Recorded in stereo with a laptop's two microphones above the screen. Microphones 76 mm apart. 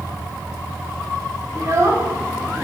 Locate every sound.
1.6 s a child speaking: 45° right (ahead or behind), 1.6 m